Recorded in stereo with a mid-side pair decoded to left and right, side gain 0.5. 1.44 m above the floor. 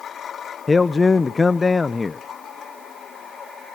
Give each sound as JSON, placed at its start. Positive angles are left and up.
{"t": 0.7, "sound": "a man speaking", "azimuth_deg": 30, "distance_m": 0.6}